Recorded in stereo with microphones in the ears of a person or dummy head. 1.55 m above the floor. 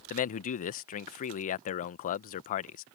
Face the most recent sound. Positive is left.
turn(degrees=45)  # may be behind; listen again after turning